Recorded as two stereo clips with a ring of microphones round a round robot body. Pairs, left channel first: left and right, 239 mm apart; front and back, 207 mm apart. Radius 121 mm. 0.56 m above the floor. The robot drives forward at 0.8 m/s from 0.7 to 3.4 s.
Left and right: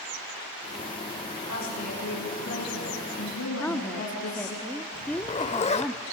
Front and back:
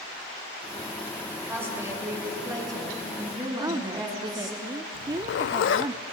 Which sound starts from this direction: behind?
A woman speaking, at 3.6 s.